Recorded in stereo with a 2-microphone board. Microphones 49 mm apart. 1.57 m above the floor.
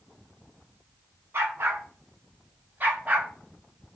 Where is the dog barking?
50° right (ahead or behind), 5.5 m; by 3.3 s 30° right (ahead or behind), 3 m.